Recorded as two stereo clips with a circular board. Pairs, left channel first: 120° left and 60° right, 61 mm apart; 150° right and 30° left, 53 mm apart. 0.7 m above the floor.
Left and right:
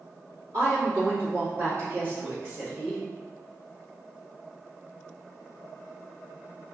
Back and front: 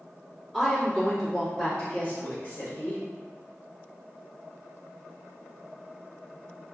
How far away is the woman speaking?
About 1.7 m.